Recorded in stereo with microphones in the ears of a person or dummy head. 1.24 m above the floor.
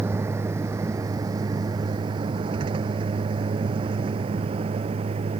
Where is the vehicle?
15° right (ahead or behind); by 5.4 s 35° right (ahead or behind).